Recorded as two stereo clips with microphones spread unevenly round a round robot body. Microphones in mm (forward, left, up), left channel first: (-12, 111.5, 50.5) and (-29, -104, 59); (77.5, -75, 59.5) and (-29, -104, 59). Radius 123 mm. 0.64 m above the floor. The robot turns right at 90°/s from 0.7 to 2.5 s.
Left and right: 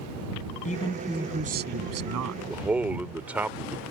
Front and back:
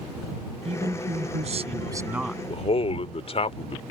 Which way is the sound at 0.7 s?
140° left.